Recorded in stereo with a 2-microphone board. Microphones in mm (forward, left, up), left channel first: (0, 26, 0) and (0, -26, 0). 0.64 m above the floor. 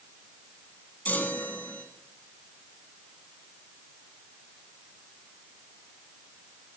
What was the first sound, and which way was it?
A chime, 30° left (ahead or behind).